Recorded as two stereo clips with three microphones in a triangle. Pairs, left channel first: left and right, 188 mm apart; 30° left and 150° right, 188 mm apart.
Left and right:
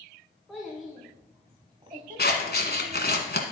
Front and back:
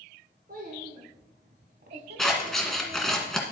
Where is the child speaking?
Straight behind, 1.5 m; by 3.2 s 90° right, 1.0 m.